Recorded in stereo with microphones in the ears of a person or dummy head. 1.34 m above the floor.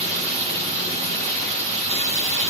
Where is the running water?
35° right (ahead or behind), 5 m.